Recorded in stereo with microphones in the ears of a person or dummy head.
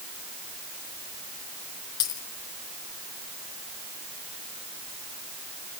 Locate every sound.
2.0 s a dropped coin: 25° left (ahead or behind), 3.5 m